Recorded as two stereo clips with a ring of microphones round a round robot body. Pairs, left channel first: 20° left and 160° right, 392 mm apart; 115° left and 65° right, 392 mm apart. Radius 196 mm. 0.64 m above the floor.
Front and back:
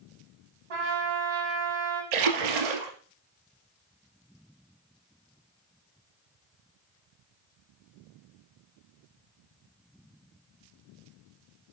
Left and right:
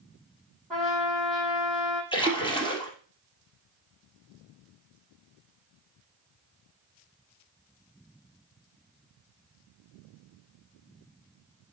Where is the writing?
I don't hear writing.